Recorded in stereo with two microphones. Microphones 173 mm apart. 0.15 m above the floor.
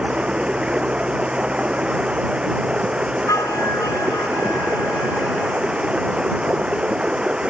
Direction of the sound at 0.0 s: 5° right (ahead or behind).